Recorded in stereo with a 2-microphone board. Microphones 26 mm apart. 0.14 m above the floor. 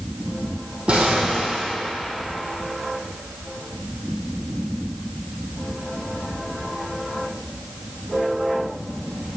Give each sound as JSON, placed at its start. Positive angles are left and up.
{"t": 0.9, "sound": "an explosion", "side_deg": -50, "distance_m": 1.7}